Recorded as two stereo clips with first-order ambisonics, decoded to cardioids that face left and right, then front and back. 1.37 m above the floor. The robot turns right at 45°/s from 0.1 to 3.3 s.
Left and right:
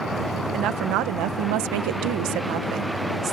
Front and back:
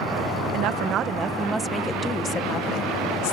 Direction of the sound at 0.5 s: 145° right.